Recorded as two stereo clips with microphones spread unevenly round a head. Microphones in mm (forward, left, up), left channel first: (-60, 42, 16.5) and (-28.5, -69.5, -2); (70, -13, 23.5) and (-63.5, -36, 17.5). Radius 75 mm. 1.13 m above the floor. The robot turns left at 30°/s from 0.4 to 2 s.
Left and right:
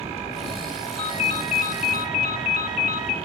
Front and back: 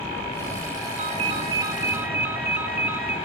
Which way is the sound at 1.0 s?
140° left.